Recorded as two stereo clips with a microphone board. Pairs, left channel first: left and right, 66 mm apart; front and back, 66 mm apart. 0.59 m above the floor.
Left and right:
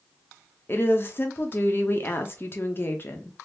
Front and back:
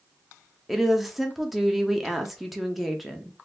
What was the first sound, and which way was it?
A woman speaking, 95° left.